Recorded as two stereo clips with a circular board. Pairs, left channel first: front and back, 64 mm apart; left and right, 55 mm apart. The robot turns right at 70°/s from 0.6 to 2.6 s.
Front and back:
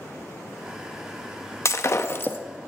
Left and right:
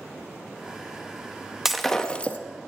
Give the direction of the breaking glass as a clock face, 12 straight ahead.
12 o'clock.